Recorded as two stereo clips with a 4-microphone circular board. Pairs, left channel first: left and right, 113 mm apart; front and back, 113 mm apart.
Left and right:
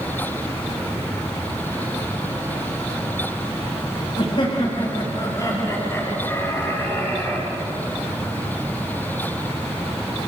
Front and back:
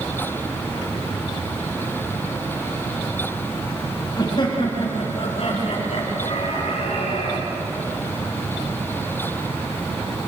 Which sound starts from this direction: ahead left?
Laughter, at 4.2 s.